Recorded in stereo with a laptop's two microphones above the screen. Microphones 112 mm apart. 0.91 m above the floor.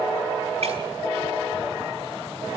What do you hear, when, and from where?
0.6 s breaking glass: 70° right (ahead or behind), 5 m